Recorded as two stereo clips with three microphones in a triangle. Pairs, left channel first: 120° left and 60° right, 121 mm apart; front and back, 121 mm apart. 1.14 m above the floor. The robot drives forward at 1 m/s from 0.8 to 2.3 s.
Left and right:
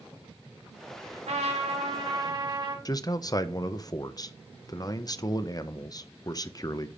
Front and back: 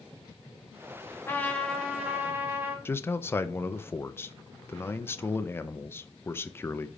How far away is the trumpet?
About 1.6 m.